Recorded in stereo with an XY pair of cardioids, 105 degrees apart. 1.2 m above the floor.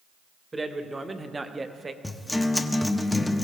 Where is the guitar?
10° left, 0.9 m.